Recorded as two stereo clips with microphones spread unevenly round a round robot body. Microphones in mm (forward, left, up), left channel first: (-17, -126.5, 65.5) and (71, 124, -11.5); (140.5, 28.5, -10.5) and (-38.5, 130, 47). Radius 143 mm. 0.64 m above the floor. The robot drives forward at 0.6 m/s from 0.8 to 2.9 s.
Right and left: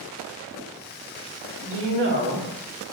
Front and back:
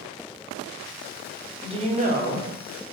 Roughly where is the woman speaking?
Left.